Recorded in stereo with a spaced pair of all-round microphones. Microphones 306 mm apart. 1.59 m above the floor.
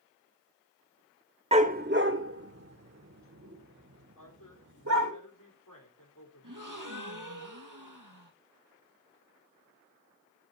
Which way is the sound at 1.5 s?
20° right (ahead or behind).